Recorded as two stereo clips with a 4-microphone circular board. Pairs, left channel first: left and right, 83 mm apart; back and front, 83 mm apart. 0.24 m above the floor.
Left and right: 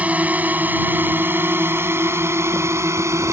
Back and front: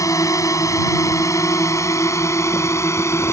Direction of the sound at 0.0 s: 155° right.